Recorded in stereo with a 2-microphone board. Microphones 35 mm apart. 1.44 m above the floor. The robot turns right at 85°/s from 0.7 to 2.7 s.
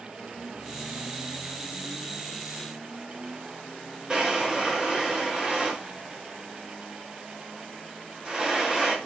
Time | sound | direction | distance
4.1 | a drawer | 20° right (ahead or behind) | 0.8 m